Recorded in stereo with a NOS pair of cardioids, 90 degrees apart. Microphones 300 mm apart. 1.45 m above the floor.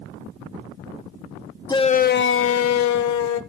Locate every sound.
1.7 s a shout: 15° left, 0.6 m; by 3.4 s 75° left, 1.2 m